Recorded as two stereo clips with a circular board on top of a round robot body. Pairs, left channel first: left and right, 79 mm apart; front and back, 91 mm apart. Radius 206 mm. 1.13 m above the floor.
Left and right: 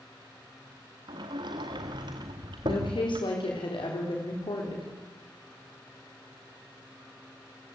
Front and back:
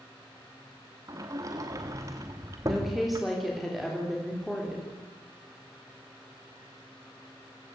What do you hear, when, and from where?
1.1 s a sliding door: 125° right, 0.7 m
2.6 s a woman speaking: 90° left, 4 m